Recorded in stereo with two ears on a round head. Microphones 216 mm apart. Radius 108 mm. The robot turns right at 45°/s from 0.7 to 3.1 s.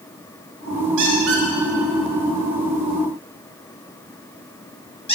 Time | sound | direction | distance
1.0 | a squeak | 65° right (ahead or behind) | 1.9 m